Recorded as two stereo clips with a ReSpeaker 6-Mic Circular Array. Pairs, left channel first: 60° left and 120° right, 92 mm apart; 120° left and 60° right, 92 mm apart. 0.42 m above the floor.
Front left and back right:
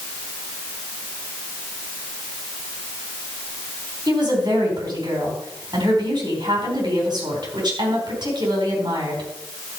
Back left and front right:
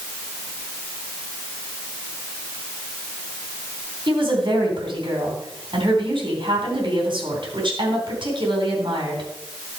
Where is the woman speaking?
85° right, 4 m.